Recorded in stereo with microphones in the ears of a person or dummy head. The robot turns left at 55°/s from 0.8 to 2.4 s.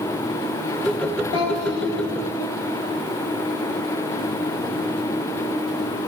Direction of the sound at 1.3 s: 80° left.